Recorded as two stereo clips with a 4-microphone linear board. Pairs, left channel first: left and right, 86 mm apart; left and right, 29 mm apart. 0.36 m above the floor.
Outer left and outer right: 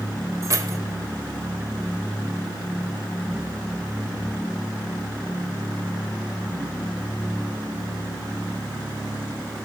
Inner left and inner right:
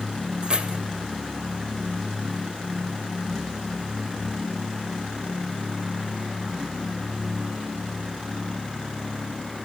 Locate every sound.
0.4 s keys jangling: 40° right (ahead or behind), 0.9 m